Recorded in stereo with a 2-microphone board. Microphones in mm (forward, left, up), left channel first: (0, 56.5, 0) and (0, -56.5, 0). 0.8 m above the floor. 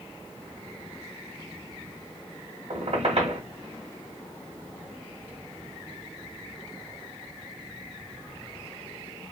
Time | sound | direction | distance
2.7 | a squeak | 65° right (ahead or behind) | 1.5 m